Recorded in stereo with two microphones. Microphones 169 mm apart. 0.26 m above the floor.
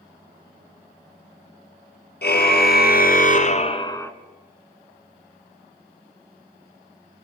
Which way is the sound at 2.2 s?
75° left (ahead or behind).